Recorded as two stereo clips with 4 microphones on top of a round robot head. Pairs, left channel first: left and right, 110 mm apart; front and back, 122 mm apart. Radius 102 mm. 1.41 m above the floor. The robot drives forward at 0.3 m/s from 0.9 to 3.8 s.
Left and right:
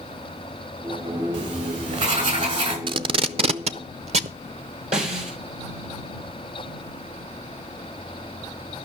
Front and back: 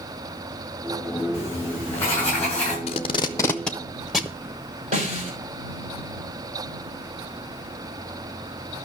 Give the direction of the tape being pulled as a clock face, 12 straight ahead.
2 o'clock.